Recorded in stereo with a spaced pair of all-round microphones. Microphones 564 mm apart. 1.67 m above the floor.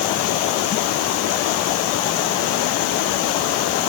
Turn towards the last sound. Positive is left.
No sound to turn to.